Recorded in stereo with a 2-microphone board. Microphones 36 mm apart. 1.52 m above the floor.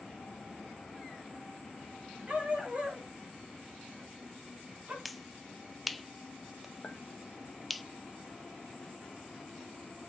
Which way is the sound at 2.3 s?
40° right (ahead or behind).